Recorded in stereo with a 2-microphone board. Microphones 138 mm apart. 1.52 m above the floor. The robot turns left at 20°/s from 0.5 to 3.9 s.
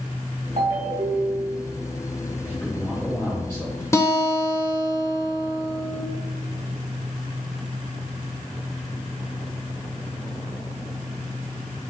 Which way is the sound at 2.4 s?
10° left (ahead or behind).